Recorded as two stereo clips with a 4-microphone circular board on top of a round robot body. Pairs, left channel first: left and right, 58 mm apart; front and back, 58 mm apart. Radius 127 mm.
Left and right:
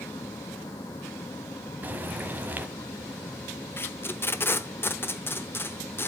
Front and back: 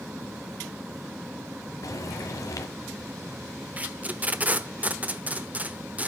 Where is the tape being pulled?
120° left, 1.0 m.